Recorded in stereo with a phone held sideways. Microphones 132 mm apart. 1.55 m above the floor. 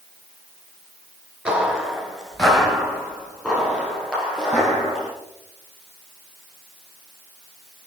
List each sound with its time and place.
1.4 s footsteps: 5° right (ahead or behind), 1.6 m; by 5.1 s 10° left (ahead or behind), 5.5 m